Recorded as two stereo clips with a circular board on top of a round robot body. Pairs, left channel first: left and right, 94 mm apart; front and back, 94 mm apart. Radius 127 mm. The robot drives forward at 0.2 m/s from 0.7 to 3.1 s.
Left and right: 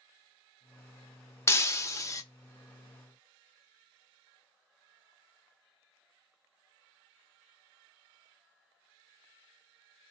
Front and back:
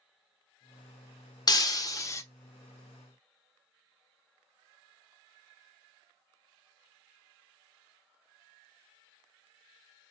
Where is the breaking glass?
35° left, 0.6 m; by 2.2 s 50° left, 0.6 m.